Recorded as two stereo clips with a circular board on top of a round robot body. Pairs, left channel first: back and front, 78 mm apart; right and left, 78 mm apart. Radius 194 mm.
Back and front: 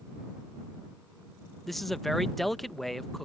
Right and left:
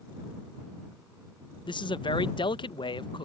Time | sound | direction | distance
1.7 | a man speaking | 95° right | ?